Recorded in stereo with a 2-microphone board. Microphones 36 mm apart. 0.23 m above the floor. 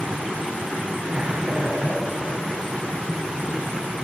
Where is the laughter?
35° right (ahead or behind), 1.9 m.